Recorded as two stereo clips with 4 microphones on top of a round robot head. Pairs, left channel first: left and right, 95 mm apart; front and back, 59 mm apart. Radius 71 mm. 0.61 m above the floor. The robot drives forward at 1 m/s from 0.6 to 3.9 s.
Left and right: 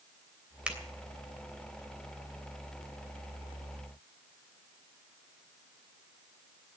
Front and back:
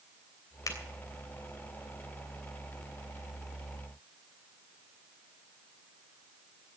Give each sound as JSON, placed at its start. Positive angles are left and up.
{"t": 0.7, "sound": "a finger snap", "azimuth_deg": -10, "distance_m": 3.0}